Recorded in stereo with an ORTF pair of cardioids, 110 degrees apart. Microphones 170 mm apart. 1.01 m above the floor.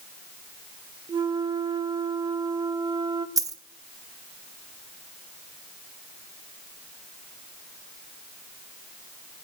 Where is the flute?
25° right, 0.9 m.